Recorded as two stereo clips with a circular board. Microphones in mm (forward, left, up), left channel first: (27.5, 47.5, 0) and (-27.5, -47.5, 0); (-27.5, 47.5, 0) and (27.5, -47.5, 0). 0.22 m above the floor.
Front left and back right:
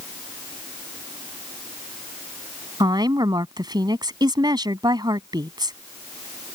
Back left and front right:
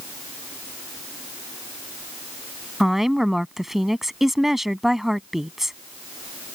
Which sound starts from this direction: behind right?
A woman speaking, at 2.8 s.